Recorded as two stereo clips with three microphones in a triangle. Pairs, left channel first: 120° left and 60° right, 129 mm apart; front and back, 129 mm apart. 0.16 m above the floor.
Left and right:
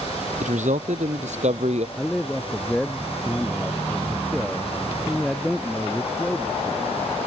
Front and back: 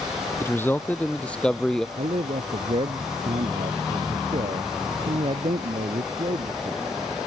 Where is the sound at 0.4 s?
70° right; by 1.9 s 85° right.